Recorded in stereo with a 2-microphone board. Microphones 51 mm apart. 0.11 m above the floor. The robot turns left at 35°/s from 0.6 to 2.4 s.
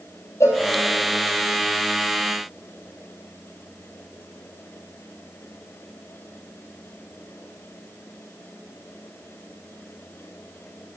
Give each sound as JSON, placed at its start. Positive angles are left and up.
{"t": 0.4, "sound": "a cowbell", "side_deg": 65, "distance_m": 1.8}